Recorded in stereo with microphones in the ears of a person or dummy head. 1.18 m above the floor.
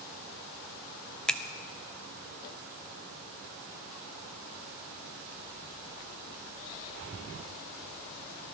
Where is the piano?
No piano in this recording.